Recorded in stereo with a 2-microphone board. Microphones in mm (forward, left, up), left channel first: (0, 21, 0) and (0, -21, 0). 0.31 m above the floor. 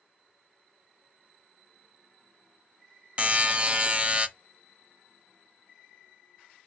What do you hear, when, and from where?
3.2 s a buzzer: 30° right (ahead or behind), 0.7 m